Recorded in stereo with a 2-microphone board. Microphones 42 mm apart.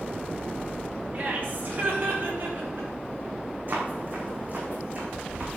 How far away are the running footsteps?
About 4.5 m.